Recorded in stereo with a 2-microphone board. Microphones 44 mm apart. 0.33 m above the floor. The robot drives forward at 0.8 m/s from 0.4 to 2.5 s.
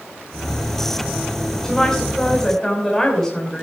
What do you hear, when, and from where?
1.6 s a woman speaking: 15° left (ahead or behind), 2 m